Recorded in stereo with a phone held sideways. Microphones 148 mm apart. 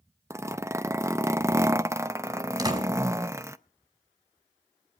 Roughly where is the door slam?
Right.